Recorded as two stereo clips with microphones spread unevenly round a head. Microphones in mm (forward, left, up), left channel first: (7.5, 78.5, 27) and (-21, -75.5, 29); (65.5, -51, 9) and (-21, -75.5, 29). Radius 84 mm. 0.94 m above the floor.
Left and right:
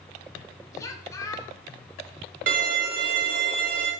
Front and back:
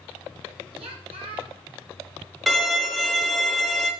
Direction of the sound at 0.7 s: 150° left.